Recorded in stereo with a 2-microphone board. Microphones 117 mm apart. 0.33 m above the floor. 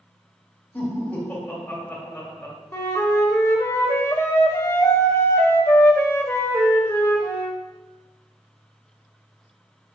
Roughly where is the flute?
Left.